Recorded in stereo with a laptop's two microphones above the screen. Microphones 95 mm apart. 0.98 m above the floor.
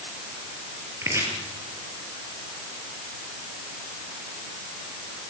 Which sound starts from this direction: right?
Chopping, at 1.0 s.